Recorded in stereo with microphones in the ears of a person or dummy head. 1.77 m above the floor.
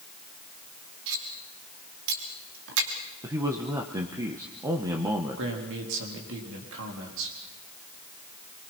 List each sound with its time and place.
1.1 s cutlery clinking: 65° right (ahead or behind), 2.5 m
3.2 s a man speaking: 15° right (ahead or behind), 1.0 m
5.4 s a man speaking: 70° right (ahead or behind), 4 m